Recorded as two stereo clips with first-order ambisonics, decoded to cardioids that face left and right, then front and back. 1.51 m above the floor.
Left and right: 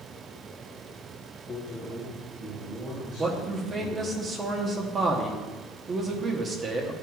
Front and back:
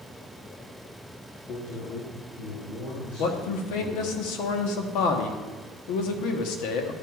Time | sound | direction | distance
1.5 | a man speaking | 30° left | 1.1 m
3.2 | a man speaking | 20° right | 1.1 m